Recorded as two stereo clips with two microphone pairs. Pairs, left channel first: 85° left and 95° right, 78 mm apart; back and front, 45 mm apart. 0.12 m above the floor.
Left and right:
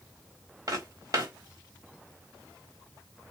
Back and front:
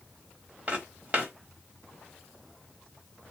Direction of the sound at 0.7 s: 50° right.